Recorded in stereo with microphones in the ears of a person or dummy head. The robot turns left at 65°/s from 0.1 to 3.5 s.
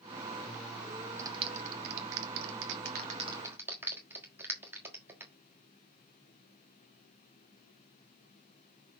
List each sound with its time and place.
1.2 s a clap: 15° right (ahead or behind), 1.4 m